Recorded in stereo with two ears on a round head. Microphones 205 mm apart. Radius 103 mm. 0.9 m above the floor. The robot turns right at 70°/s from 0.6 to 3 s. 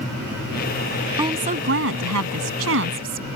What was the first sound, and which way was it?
A woman speaking, 165° right.